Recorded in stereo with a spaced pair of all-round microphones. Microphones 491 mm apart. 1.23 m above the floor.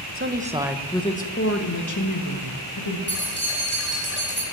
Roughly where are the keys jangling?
Left.